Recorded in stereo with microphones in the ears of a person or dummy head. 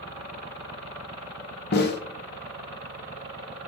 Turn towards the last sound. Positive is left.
turn(degrees=50)  # may be behind; listen again after turning